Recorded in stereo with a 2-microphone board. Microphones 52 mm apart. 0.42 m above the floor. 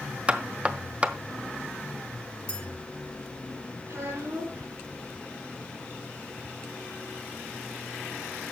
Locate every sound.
0.3 s knocking: 30° right (ahead or behind), 0.7 m
2.5 s a clink: 25° left (ahead or behind), 5.5 m
3.9 s a child speaking: 65° right (ahead or behind), 3.5 m